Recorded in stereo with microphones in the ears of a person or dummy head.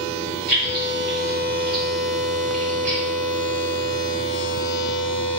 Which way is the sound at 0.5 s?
55° right (ahead or behind).